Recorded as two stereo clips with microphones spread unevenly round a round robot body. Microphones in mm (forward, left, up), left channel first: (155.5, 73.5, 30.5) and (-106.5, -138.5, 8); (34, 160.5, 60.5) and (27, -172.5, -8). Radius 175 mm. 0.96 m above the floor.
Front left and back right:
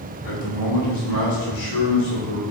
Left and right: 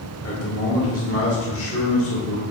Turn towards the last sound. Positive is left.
turn(degrees=15)